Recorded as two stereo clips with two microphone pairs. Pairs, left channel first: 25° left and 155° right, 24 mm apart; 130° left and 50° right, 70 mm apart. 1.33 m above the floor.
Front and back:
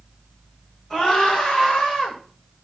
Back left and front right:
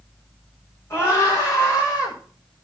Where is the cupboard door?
No cupboard door in this recording.